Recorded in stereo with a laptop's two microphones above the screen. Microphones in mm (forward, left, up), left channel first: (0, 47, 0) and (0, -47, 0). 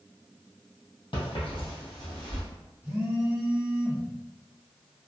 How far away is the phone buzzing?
About 0.7 m.